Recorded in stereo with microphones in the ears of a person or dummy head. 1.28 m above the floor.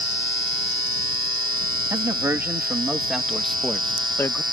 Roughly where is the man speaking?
Centre.